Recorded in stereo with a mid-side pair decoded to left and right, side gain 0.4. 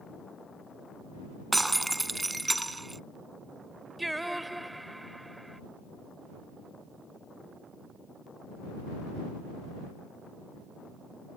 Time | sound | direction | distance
1.5 | breaking glass | 15° right | ?
4.0 | singing | 5° right | ?